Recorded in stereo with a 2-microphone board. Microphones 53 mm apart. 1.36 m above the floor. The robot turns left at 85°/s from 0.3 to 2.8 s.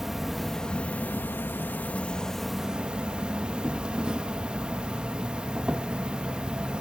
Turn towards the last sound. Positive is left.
turn(degrees=-25)